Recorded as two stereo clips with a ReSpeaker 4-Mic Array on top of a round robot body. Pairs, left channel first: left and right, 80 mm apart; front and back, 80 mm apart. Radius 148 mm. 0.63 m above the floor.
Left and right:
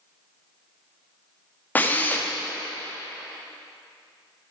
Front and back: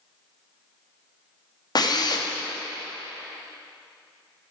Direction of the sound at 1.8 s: 25° left.